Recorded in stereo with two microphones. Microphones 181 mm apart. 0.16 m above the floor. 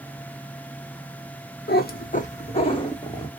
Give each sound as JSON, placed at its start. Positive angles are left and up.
{"t": 1.7, "sound": "a cat meowing", "side_deg": 75, "distance_m": 0.8}